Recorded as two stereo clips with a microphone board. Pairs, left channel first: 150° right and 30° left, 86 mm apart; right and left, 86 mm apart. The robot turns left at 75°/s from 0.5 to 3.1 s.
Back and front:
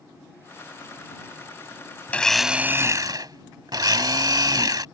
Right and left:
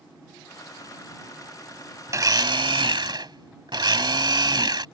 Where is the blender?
140° left; by 4.8 s 65° left.